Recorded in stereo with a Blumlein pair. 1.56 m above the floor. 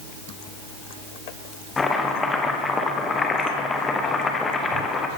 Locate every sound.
1.8 s chopping: 15° left, 0.9 m